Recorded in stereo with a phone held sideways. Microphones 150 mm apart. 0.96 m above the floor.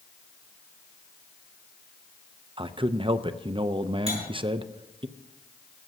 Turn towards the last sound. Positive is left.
turn(degrees=-45)  # may be behind; listen again after turning